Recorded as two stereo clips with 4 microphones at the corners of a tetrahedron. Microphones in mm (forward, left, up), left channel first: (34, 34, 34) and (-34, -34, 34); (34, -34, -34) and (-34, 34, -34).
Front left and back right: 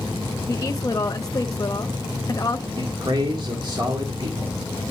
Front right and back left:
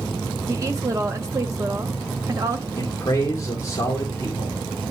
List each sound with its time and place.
0.5 s a woman speaking: 90° left, 0.8 m
2.8 s a man speaking: 100° right, 1.9 m